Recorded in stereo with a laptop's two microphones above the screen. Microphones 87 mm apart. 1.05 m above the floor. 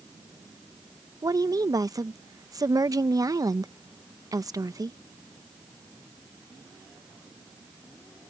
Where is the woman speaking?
40° right (ahead or behind).